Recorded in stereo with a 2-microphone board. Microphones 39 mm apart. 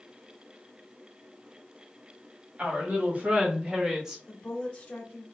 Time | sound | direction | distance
2.6 | a woman speaking | 45° right (ahead or behind) | 2 m
4.3 | a woman speaking | 25° left (ahead or behind) | 1.2 m